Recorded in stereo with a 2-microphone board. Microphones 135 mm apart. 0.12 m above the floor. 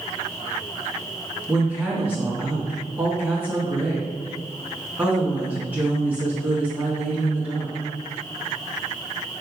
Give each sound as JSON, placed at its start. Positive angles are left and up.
{"t": 1.5, "sound": "a woman speaking", "side_deg": -10, "distance_m": 1.7}